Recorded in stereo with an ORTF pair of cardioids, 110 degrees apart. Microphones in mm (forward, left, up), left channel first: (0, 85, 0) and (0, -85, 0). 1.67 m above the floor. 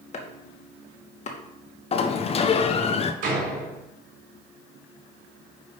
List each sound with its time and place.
0.1 s chopping: 40° left, 1.8 m
1.9 s a sliding door: 35° left, 0.9 m
3.2 s a door slam: 65° right, 4 m